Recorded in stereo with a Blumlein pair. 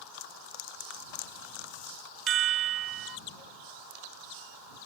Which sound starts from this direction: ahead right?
A chime, at 2.3 s.